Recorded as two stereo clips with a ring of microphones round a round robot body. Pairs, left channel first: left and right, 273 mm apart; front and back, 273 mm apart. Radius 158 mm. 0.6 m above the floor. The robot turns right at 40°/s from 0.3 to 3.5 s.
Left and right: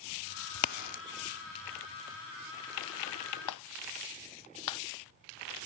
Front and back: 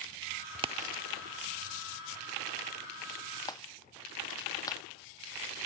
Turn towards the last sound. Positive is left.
turn(degrees=80)